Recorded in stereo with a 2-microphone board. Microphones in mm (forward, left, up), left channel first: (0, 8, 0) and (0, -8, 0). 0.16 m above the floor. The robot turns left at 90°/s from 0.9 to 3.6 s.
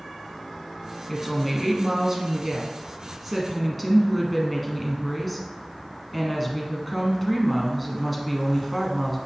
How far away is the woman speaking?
About 1.4 m.